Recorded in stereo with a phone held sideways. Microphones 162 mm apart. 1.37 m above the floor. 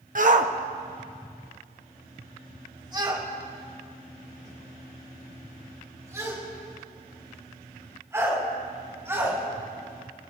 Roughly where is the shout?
Right.